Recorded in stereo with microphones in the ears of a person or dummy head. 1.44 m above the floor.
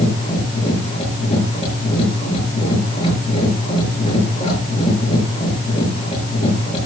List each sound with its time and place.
0.0 s a machine running: 30° left (ahead or behind), 5.5 m